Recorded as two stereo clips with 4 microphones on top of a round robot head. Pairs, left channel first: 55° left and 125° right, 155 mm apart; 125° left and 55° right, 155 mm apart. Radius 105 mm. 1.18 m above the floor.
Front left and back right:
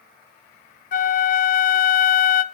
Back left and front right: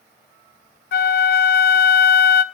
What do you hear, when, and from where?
0.9 s a flute: 95° left, 0.6 m